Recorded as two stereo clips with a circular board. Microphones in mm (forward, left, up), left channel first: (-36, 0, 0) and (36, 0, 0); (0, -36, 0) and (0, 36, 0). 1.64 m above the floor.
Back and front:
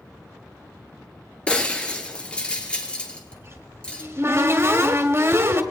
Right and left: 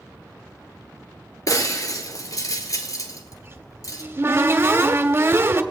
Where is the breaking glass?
105° right, 2.5 m.